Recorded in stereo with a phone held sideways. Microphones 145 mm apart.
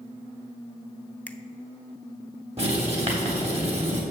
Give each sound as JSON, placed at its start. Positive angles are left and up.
{"t": 1.3, "sound": "a finger snap", "side_deg": 10, "distance_m": 0.5}
{"t": 2.6, "sound": "writing", "side_deg": -45, "distance_m": 3.0}